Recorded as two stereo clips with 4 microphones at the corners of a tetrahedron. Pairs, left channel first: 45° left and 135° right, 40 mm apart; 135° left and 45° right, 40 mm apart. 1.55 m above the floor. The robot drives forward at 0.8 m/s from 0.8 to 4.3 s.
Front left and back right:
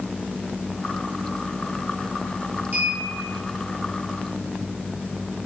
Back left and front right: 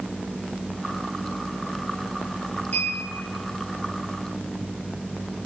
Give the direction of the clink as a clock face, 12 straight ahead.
6 o'clock.